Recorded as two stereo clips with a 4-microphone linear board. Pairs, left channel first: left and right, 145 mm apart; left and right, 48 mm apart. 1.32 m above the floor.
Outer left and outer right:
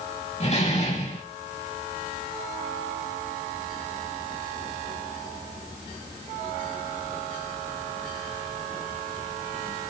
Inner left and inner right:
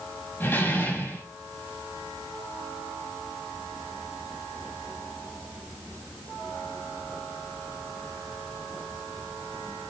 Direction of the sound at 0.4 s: 50° left (ahead or behind).